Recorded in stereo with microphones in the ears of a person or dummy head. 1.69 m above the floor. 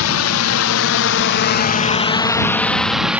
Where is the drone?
80° left; by 3.2 s 5° right (ahead or behind).